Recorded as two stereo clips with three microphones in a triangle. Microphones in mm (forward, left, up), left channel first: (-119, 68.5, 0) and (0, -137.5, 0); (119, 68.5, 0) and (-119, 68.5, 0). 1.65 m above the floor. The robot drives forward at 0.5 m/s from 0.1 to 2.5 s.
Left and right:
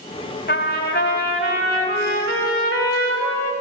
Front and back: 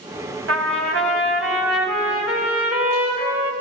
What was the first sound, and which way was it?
A trumpet, 165° left.